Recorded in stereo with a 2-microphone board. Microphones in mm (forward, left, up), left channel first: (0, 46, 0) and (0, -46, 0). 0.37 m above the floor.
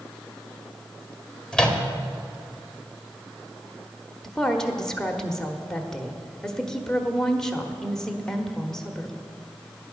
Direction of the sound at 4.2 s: 5° left (ahead or behind).